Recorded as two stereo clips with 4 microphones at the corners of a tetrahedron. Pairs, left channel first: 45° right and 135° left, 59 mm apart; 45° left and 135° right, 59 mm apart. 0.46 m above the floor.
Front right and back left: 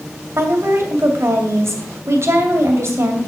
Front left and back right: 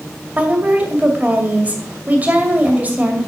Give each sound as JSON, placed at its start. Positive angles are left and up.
{"t": 0.4, "sound": "a woman speaking", "azimuth_deg": 165, "distance_m": 2.0}